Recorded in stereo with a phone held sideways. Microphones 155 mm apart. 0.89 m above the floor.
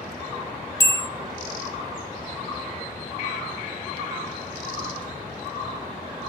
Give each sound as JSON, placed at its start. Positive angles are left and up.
{"t": 0.8, "sound": "a bell", "side_deg": 20, "distance_m": 0.9}